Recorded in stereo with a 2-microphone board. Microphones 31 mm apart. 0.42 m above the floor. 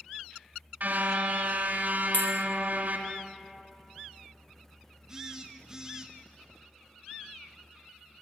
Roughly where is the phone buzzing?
Centre.